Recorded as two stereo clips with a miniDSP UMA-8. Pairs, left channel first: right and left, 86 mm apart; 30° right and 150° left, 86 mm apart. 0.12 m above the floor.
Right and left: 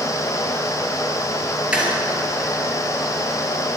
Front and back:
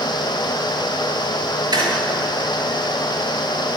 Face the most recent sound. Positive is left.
turn(degrees=165)